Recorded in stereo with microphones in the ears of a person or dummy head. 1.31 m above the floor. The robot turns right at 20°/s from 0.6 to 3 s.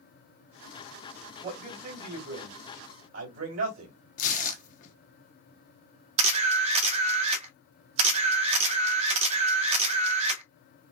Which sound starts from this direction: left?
Tearing paper, at 4.2 s.